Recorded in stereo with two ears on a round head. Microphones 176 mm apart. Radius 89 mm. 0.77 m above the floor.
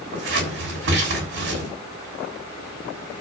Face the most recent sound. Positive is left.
turn(degrees=-70)  # may be behind; listen again after turning